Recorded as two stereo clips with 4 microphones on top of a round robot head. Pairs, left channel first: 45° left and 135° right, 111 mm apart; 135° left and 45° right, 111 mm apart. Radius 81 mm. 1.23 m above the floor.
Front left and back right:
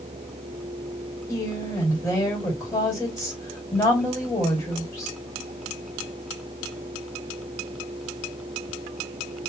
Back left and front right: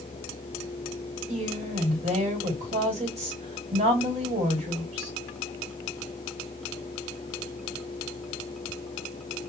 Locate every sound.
1.3 s a woman speaking: 30° right, 2 m